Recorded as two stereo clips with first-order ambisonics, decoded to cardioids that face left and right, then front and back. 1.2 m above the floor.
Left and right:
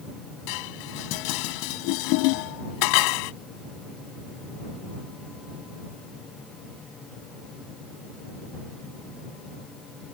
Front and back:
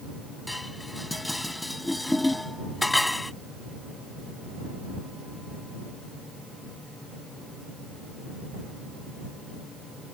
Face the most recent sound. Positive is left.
turn(degrees=85)